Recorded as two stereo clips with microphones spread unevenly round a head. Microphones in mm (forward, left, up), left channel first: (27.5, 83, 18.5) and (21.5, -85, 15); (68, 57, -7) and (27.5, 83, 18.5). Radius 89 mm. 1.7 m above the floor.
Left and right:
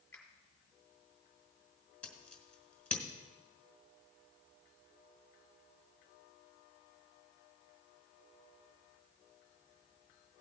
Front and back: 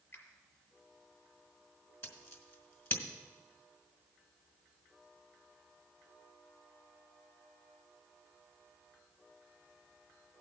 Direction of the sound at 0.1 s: 5° left.